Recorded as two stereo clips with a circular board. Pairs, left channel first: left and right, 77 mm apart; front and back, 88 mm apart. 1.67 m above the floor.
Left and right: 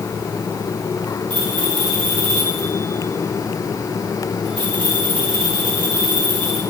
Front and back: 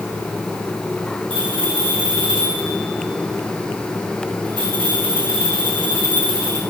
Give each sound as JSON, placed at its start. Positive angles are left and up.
{"t": 1.3, "sound": "a bell", "azimuth_deg": 165, "distance_m": 4.5}